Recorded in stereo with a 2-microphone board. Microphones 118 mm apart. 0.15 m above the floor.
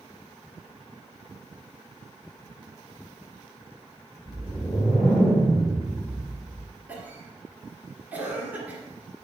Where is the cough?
15° right (ahead or behind), 1.9 m.